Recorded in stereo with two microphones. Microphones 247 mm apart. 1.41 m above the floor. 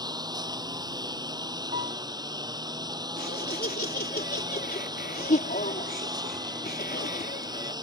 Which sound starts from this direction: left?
Laughter, at 3.2 s.